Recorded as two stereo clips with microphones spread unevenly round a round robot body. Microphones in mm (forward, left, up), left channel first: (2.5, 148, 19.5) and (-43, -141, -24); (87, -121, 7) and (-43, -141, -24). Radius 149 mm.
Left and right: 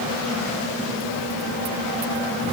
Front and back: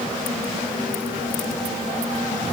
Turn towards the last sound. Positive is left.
No sound to turn to.